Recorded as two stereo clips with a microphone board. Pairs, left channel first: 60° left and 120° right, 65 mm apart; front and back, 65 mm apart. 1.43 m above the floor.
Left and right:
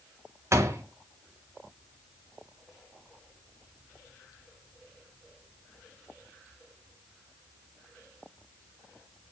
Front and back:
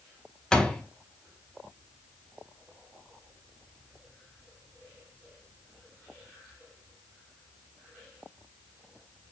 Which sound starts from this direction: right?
A door slam, at 0.5 s.